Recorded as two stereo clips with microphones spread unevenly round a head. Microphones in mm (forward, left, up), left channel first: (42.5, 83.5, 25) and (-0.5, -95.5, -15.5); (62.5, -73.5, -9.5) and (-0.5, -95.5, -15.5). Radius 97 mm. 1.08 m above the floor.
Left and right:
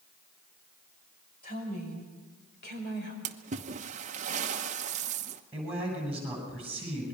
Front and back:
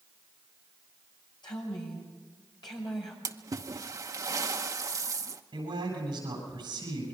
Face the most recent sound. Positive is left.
turn(degrees=170)